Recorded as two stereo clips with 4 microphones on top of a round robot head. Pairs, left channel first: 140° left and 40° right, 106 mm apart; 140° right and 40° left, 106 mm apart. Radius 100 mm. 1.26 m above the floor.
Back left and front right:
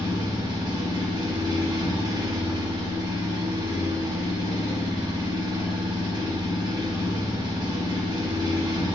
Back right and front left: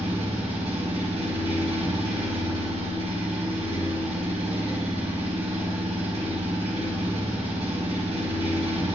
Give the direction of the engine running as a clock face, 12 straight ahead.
12 o'clock.